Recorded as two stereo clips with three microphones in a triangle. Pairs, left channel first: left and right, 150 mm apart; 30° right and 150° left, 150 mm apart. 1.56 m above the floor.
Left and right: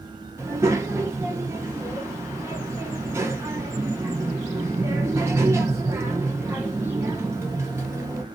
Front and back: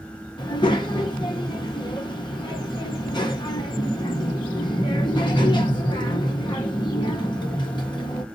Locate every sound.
0.4 s a child speaking: 35° right, 0.7 m